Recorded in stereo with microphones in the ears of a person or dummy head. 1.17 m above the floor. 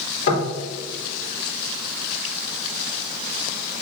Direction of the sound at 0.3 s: 55° left (ahead or behind).